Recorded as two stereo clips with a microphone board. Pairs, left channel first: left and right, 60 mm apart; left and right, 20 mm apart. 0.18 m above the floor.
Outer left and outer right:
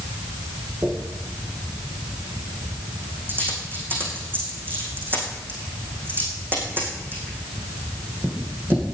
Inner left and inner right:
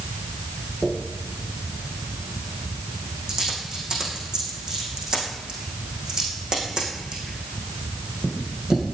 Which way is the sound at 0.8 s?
35° right (ahead or behind).